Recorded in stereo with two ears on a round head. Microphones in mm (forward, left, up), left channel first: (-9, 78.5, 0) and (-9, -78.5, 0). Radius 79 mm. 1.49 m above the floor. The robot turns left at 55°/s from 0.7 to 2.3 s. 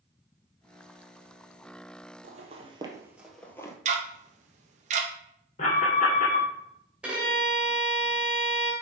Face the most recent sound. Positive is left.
turn(degrees=-5)  # may be behind; listen again after turning